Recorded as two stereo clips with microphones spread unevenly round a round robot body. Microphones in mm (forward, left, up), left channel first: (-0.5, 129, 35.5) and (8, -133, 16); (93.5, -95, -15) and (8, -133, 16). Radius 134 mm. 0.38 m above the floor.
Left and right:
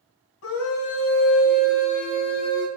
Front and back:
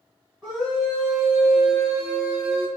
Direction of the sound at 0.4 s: 125° left.